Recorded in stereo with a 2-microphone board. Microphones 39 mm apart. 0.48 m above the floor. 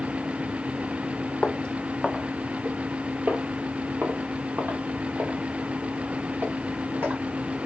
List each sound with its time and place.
1.4 s footsteps: 30° left (ahead or behind), 0.6 m; by 7.2 s 75° right (ahead or behind), 2.5 m